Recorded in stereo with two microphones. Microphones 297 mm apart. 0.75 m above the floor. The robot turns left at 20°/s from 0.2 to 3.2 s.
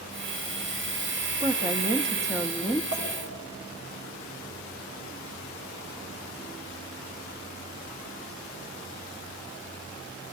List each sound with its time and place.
1.4 s a woman speaking: 20° right (ahead or behind), 0.5 m; by 2.8 s 5° right (ahead or behind), 0.5 m
2.9 s a clink: 65° right (ahead or behind), 3.5 m; by 3.0 s 60° right (ahead or behind), 3.5 m